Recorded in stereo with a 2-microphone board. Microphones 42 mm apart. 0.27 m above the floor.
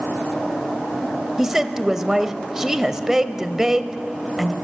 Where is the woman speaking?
15° right (ahead or behind), 0.9 m.